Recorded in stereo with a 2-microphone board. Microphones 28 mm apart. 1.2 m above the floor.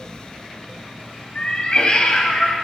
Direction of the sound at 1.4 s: 35° left (ahead or behind).